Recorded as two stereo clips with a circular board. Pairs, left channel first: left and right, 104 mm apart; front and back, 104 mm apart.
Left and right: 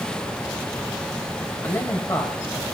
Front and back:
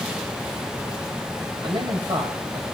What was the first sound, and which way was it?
A man speaking, 155° left.